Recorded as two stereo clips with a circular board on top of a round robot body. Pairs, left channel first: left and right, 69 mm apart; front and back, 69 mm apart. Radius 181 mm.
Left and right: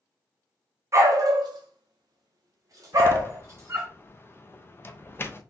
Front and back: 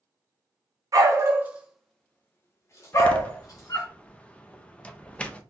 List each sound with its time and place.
0.9 s a dog barking: 140° right, 0.6 m; by 3.9 s 35° right, 1.3 m
2.9 s a door slam: 60° left, 0.8 m